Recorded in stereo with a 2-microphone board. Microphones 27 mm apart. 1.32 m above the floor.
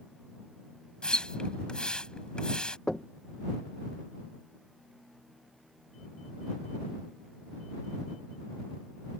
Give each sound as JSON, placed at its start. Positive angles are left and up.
{"t": 1.0, "sound": "a splash", "side_deg": 30}
{"t": 2.9, "sound": "knocking", "side_deg": 30}